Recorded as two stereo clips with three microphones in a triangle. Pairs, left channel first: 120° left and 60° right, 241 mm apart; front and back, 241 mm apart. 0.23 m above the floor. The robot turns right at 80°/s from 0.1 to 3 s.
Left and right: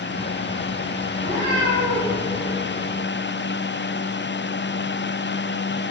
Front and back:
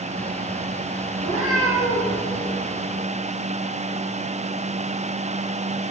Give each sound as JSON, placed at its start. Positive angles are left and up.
{"t": 1.2, "sound": "a cat meowing", "azimuth_deg": -135, "distance_m": 5.0}